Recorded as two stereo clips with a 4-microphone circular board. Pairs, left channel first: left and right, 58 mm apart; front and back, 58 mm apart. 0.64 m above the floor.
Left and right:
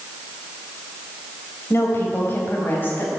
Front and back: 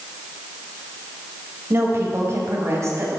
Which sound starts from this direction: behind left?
A woman speaking, at 1.7 s.